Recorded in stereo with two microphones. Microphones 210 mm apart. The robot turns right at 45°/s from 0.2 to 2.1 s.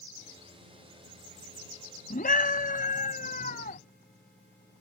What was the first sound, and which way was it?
A scream, 40° left (ahead or behind).